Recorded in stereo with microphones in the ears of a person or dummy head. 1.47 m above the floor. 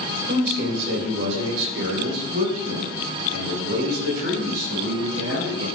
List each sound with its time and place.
0.3 s a man speaking: 50° right (ahead or behind), 4 m; by 5.7 s 75° right (ahead or behind), 5.5 m